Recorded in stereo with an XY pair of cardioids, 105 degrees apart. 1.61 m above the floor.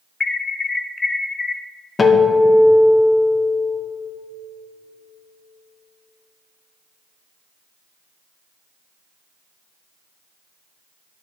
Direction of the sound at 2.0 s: 30° left.